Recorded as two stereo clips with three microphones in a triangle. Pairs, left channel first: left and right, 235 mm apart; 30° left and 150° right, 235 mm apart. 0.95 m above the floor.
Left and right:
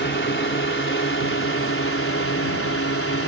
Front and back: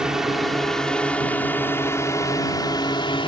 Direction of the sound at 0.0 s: 125° left.